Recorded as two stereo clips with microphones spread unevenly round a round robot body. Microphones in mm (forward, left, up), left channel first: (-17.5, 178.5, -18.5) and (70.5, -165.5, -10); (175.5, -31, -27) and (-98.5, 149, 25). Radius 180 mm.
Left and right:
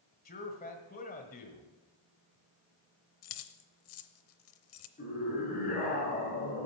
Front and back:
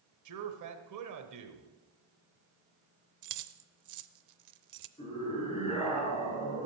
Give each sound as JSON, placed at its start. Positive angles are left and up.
{"t": 0.2, "sound": "a man speaking", "azimuth_deg": 160, "distance_m": 1.3}
{"t": 3.2, "sound": "keys jangling", "azimuth_deg": 135, "distance_m": 0.7}
{"t": 5.0, "sound": "a scream", "azimuth_deg": 40, "distance_m": 6.5}